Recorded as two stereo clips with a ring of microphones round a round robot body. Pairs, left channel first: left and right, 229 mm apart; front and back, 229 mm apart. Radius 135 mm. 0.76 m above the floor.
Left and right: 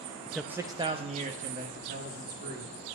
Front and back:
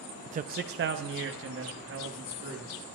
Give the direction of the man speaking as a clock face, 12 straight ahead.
6 o'clock.